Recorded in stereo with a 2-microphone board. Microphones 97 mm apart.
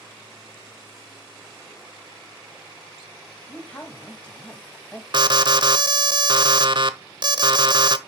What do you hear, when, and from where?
3.5 s a man speaking: 15° left (ahead or behind), 2 m
5.1 s an alarm: 50° right (ahead or behind), 0.8 m